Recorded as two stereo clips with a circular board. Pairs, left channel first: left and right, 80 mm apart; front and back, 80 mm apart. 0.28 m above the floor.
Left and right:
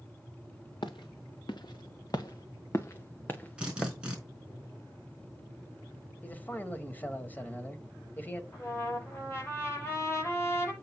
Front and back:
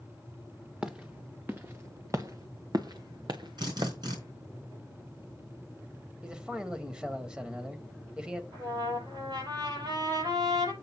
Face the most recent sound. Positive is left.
turn(degrees=150)